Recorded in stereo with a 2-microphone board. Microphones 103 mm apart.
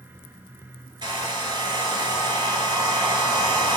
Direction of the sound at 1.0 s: 50° right (ahead or behind).